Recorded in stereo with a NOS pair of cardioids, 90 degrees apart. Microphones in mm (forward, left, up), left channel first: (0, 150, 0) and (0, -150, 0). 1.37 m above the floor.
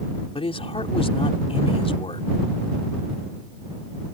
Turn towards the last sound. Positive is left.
turn(degrees=20)